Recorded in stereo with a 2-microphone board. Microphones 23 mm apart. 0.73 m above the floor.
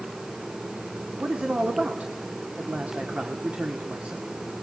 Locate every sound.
1.2 s a man speaking: 60° right (ahead or behind), 2 m